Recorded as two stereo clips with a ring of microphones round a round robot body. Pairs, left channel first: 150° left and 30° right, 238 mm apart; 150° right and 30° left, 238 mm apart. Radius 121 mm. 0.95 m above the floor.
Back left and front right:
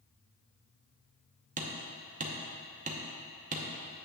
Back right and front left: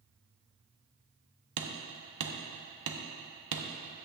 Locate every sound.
1.6 s hammering: 30° left, 0.8 m